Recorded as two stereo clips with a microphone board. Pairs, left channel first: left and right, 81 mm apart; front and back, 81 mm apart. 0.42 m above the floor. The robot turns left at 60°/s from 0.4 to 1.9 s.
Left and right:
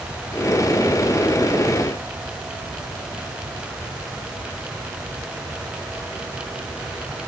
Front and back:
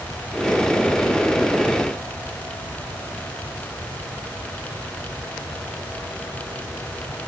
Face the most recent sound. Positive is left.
No sound to turn to.